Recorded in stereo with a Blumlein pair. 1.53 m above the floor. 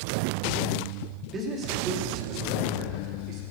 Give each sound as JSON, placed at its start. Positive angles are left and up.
{"t": 1.3, "sound": "a man speaking", "azimuth_deg": -20, "distance_m": 3.5}